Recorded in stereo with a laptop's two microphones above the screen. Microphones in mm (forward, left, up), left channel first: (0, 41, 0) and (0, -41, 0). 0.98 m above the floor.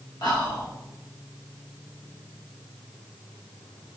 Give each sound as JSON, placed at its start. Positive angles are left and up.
{"t": 0.2, "sound": "whispering", "side_deg": 65, "distance_m": 1.4}